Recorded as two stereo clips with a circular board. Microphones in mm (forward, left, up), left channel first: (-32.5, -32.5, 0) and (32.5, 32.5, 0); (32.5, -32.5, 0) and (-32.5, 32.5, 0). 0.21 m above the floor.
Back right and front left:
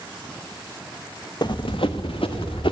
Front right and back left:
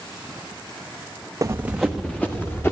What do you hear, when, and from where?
1.4 s running footsteps: 170° right, 0.8 m; by 2.7 s 110° right, 2 m